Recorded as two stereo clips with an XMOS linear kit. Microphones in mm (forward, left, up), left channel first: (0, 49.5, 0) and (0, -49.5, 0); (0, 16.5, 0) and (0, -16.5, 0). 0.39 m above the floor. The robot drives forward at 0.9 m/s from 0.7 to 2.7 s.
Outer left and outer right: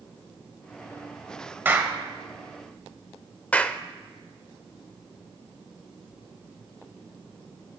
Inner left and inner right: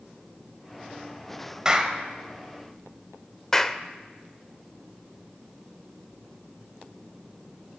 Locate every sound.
1.6 s a clap: 20° right (ahead or behind), 1.5 m; by 2.0 s 15° right (ahead or behind), 1.7 m
3.5 s a clap: 15° left (ahead or behind), 0.7 m